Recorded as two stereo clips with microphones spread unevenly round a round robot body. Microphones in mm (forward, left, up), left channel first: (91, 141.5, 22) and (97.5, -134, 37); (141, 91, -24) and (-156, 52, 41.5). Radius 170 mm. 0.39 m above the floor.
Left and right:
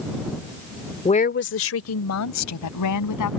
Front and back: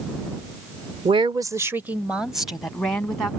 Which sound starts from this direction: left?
A woman speaking, at 1.1 s.